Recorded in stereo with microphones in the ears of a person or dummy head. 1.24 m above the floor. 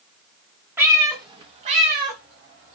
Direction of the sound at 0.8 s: 10° right (ahead or behind).